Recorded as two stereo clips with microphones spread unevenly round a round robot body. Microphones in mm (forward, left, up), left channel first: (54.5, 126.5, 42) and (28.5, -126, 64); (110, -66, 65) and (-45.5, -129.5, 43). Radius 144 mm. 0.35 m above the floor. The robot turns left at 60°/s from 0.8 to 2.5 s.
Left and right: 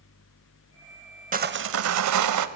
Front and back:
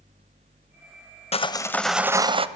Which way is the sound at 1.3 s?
35° right.